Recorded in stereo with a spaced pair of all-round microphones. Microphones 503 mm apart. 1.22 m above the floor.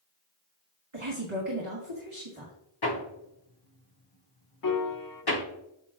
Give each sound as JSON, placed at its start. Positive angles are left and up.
{"t": 0.9, "sound": "a woman speaking", "side_deg": -75, "distance_m": 2.0}
{"t": 2.8, "sound": "hammering", "side_deg": 50, "distance_m": 1.2}
{"t": 4.6, "sound": "a piano", "side_deg": 45, "distance_m": 0.6}